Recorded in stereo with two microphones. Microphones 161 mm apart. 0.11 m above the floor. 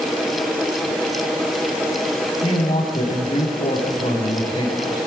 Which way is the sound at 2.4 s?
45° left (ahead or behind).